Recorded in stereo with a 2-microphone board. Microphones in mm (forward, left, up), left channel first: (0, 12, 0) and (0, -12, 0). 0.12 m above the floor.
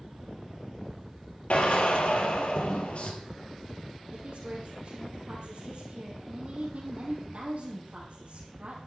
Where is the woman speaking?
65° right (ahead or behind), 4.5 m.